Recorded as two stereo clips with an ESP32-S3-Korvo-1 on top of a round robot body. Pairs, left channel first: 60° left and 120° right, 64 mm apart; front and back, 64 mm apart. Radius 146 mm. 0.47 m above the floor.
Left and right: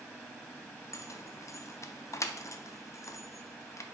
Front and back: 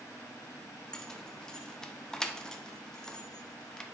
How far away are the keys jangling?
About 0.6 m.